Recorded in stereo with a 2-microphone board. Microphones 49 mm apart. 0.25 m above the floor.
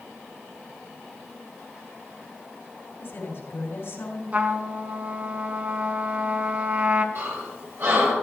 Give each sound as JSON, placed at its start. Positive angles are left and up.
{"t": 3.0, "sound": "a woman speaking", "side_deg": 60, "distance_m": 2.5}
{"t": 4.3, "sound": "a trumpet", "side_deg": -35, "distance_m": 0.9}
{"t": 7.2, "sound": "breathing", "side_deg": -65, "distance_m": 4.5}